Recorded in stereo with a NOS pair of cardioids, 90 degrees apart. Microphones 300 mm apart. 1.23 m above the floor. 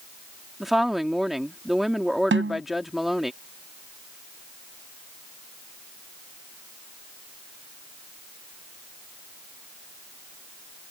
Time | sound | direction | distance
0.6 | a woman speaking | straight ahead | ?
2.3 | a snare drum | 40° right | ?